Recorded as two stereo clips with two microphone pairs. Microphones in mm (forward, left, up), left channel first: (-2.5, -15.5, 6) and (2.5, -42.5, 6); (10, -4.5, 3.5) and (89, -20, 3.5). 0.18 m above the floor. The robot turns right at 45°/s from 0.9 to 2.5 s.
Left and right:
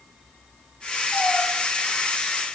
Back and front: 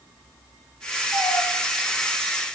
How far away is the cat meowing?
About 9.5 m.